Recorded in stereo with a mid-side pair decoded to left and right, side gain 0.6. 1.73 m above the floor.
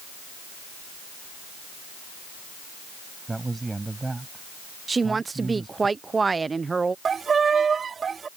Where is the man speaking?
15° right.